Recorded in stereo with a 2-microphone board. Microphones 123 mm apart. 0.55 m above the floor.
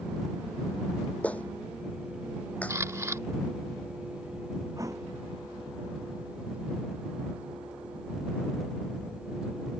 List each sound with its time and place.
1.2 s a clap: 10° left (ahead or behind)
2.7 s a camera shutter: 25° right (ahead or behind)
4.8 s a thud: 25° right (ahead or behind)